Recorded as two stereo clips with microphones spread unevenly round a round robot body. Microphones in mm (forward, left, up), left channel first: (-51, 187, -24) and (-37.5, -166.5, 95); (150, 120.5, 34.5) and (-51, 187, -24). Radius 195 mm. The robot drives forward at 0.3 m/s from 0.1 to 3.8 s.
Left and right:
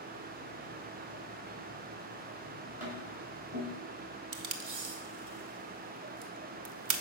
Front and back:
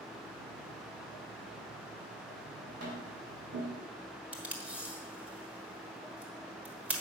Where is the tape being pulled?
130° right, 0.9 m.